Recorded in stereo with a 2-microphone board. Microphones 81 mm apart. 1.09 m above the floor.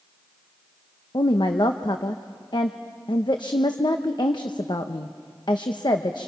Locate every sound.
1.1 s a woman speaking: 70° left (ahead or behind), 0.9 m